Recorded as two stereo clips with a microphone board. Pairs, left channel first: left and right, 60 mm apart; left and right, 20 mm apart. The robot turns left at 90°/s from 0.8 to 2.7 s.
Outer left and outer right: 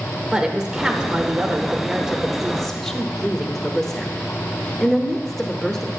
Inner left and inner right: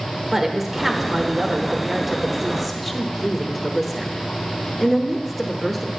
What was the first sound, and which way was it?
A woman speaking, 10° right (ahead or behind).